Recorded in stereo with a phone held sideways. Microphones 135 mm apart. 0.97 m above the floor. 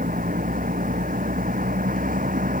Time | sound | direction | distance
0.0 | a vehicle | 90° right | ?